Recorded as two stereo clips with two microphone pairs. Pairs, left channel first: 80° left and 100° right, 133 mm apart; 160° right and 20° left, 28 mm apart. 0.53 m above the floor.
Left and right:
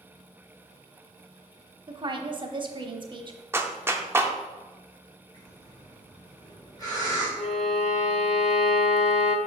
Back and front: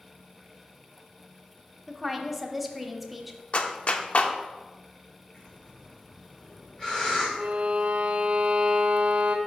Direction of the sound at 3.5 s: 170° right.